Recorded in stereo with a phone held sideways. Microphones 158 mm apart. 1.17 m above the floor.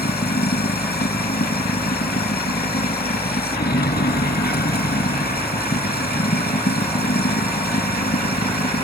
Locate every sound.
0.0 s running water: 90° left